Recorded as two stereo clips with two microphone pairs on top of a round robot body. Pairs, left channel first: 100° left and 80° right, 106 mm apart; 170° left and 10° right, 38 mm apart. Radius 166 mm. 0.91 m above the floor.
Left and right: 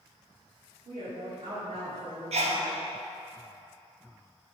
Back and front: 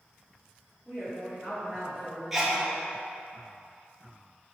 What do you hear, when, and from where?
0.8 s a woman speaking: 105° right, 2.5 m
2.3 s a sneeze: 95° right, 1.2 m